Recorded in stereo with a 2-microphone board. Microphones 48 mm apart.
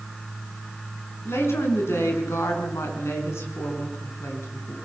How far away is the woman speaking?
About 5.5 m.